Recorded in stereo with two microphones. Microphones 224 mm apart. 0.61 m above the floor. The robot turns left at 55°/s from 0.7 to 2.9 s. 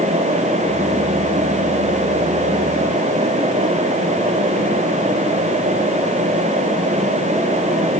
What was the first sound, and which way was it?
Only background noise.